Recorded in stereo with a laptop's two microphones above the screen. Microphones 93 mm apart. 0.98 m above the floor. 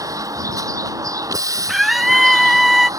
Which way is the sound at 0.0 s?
40° right (ahead or behind).